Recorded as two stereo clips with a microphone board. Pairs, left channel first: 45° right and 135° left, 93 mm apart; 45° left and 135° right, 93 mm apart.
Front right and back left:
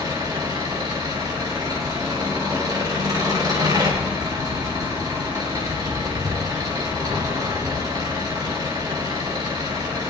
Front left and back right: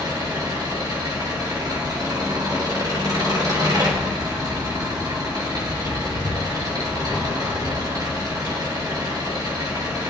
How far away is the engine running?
About 3 m.